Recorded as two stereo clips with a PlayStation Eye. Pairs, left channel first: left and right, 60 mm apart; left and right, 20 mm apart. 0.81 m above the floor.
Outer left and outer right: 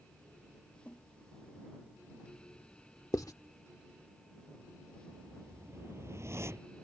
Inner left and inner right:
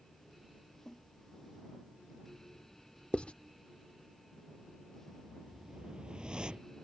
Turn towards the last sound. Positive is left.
turn(degrees=-50)  # may be behind; listen again after turning